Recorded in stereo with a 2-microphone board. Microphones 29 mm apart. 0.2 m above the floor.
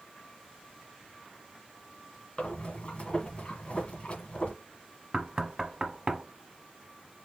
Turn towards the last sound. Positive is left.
turn(degrees=-30)  # may be behind; listen again after turning